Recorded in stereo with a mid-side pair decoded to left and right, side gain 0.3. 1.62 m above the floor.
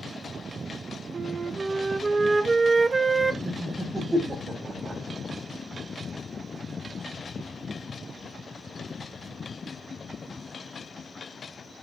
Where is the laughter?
25° right, 7 m.